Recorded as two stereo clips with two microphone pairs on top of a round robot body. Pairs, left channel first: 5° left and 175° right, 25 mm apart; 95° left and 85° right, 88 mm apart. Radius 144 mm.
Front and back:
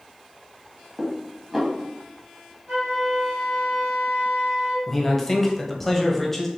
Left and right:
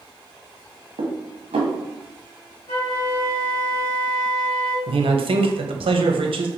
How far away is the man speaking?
About 0.8 m.